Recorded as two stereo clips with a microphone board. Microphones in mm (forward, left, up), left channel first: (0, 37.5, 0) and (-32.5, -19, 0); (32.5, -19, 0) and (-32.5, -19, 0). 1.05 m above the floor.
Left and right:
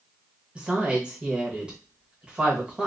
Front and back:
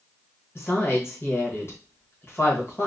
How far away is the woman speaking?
About 1.4 m.